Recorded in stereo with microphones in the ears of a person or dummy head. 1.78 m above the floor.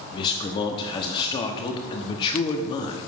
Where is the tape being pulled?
No tape being pulled in this recording.